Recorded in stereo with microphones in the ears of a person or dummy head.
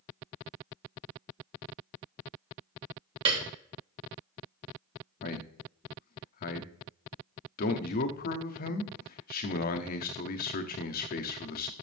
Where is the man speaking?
45° left (ahead or behind), 0.9 m.